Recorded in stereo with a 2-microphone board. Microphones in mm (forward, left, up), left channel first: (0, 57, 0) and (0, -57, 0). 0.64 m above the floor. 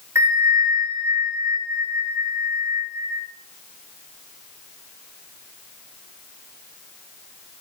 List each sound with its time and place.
0.1 s a bell: 25° right (ahead or behind), 6.5 m